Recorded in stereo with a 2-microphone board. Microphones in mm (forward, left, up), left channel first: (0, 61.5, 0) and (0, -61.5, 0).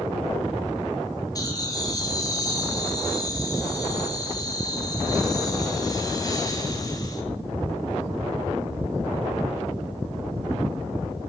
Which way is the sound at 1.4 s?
30° left (ahead or behind).